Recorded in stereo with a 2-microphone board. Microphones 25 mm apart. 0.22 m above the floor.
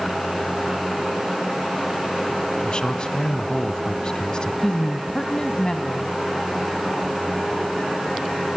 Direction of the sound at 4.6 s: 30° left (ahead or behind).